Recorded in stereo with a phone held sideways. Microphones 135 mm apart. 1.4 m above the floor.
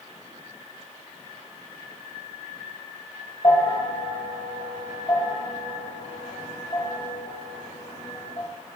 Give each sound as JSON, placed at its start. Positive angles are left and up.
{"t": 3.4, "sound": "a bell", "side_deg": 40, "distance_m": 1.6}